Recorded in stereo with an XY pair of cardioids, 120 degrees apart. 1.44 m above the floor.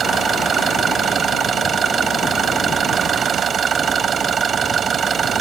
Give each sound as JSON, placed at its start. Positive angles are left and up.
{"t": 0.0, "sound": "an engine running", "azimuth_deg": -40}